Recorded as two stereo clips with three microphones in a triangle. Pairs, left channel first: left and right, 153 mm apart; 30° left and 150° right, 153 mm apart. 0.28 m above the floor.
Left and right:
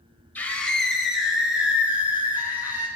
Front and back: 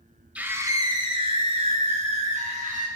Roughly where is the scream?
Behind left.